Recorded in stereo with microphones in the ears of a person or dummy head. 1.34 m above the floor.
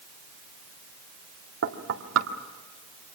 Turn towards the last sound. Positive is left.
turn(degrees=-75)  # may be behind; listen again after turning